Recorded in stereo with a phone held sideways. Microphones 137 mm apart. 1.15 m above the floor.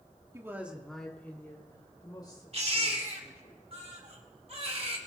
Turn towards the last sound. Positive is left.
turn(degrees=-50)  # may be behind; listen again after turning